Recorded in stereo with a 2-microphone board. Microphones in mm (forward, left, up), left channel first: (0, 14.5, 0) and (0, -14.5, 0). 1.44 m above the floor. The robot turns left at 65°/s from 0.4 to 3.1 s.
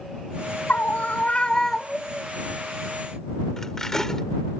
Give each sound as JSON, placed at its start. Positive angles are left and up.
{"t": 0.7, "sound": "a scream", "azimuth_deg": 85}
{"t": 3.6, "sound": "cutlery clinking", "side_deg": 15}